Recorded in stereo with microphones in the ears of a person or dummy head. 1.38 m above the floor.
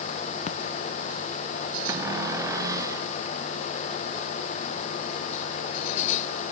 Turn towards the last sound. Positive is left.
turn(degrees=-20)  # may be behind; listen again after turning